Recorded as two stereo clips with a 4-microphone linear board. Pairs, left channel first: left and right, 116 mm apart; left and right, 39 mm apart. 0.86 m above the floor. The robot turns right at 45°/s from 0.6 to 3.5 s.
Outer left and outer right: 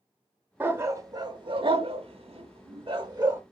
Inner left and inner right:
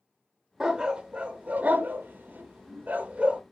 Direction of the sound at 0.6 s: 15° right (ahead or behind).